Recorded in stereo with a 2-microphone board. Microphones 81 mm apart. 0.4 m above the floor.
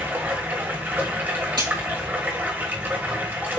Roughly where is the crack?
Right.